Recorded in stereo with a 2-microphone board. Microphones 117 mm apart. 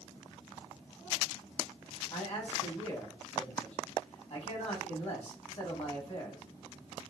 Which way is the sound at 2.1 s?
60° left (ahead or behind).